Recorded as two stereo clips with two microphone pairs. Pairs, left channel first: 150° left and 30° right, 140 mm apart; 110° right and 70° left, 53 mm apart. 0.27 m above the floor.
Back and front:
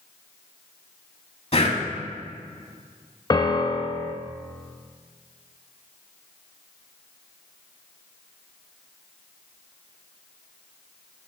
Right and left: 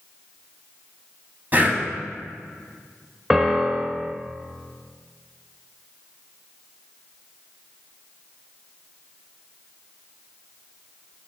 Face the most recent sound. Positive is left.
turn(degrees=150)